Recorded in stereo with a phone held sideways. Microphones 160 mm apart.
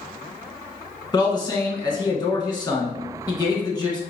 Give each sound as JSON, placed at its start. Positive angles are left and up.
{"t": 1.1, "sound": "a man speaking", "side_deg": 25, "distance_m": 1.3}